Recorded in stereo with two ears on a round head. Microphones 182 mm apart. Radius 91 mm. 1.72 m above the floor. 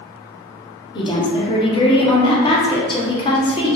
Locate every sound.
0.9 s a woman speaking: 25° left (ahead or behind), 0.7 m